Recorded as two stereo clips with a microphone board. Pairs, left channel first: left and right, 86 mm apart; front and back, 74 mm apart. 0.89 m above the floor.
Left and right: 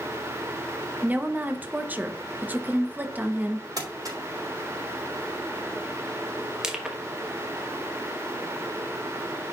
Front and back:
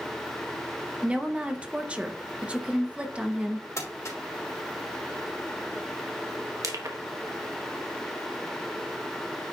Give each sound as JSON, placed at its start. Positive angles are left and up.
{"t": 1.0, "sound": "a woman speaking", "azimuth_deg": -125, "distance_m": 0.9}
{"t": 3.8, "sound": "crumpling", "azimuth_deg": -50, "distance_m": 3.5}
{"t": 6.6, "sound": "crushing", "azimuth_deg": -170, "distance_m": 1.2}